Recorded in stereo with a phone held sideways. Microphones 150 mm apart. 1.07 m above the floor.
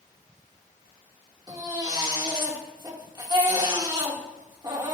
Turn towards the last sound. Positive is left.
turn(degrees=-30)  # may be behind; listen again after turning